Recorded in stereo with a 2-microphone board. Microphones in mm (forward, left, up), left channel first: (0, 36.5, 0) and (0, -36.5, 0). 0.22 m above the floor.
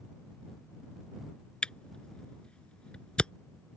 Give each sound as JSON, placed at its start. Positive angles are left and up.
{"t": 1.6, "sound": "a camera shutter", "side_deg": 15}